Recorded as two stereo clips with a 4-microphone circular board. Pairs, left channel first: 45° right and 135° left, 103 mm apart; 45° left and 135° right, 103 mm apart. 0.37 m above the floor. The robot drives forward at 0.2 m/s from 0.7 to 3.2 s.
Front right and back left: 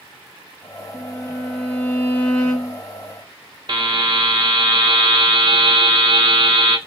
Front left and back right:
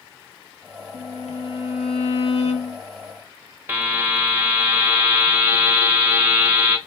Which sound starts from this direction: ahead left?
A violin, at 0.9 s.